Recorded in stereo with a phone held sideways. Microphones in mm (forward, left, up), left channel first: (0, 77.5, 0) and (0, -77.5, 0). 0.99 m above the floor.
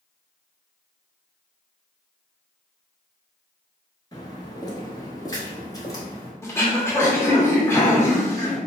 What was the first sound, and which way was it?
Footsteps, 25° left (ahead or behind).